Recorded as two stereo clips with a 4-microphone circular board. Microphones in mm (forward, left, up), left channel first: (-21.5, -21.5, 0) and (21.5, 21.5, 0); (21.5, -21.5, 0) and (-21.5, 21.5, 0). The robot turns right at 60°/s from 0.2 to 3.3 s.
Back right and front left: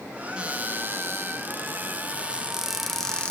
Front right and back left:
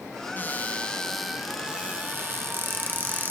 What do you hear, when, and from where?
0.4 s a cupboard door: 10° right, 1.0 m; by 3.3 s 165° left, 1.0 m